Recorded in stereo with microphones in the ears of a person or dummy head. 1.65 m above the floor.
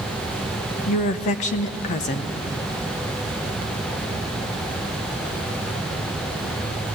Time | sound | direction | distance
0.9 | a woman speaking | 45° left (ahead or behind) | 1.0 m